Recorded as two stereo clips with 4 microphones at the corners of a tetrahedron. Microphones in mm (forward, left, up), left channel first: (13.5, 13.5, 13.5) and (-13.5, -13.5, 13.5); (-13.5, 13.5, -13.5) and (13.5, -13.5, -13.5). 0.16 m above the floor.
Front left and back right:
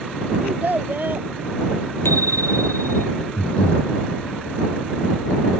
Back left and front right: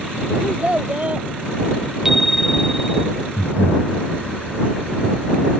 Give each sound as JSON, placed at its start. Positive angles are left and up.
{"t": 0.4, "sound": "a child speaking", "azimuth_deg": -95}
{"t": 2.0, "sound": "a bicycle bell", "azimuth_deg": 40}
{"t": 3.4, "sound": "breathing", "azimuth_deg": 105}